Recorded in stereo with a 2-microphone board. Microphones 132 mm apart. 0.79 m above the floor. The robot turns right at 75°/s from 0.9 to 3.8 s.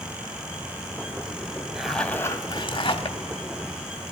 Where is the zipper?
10° right, 0.8 m; by 3.2 s 95° left, 0.8 m.